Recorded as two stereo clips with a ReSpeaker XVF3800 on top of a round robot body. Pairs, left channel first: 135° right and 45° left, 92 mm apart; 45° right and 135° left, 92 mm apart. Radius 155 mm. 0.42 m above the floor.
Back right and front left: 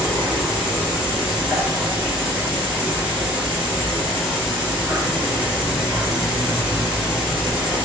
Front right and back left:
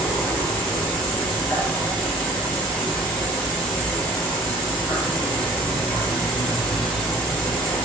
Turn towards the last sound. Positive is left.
turn(degrees=0)